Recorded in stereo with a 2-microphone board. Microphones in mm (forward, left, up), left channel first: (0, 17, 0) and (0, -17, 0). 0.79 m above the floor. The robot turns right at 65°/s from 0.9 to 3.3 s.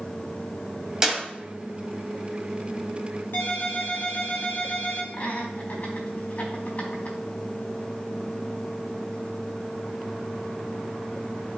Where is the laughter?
55° left (ahead or behind), 4.5 m.